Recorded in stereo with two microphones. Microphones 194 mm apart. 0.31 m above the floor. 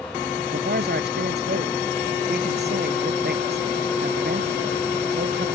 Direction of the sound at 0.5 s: 60° right (ahead or behind).